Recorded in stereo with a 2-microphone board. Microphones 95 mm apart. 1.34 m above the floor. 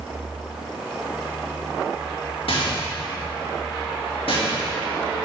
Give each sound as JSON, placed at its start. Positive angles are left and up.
{"t": 2.5, "sound": "a rattle", "side_deg": 80, "distance_m": 2.0}